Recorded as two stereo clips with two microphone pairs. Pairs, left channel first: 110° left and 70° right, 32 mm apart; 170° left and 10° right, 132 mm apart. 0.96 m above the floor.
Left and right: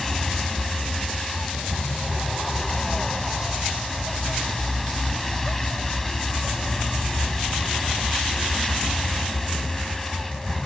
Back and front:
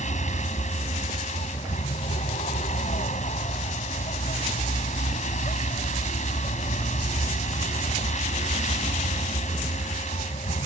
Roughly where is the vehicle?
Behind.